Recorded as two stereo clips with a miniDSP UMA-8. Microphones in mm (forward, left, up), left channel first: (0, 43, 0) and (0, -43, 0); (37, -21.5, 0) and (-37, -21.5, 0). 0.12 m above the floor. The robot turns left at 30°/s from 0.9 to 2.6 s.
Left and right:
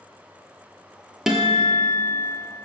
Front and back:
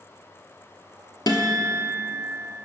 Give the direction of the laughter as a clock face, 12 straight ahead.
I don't hear laughter.